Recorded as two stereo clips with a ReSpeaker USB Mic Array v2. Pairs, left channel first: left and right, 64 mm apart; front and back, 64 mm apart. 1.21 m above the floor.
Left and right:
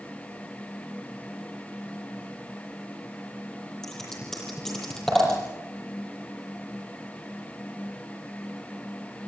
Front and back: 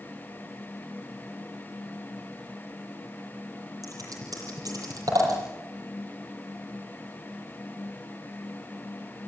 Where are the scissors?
175° left, 8.5 m.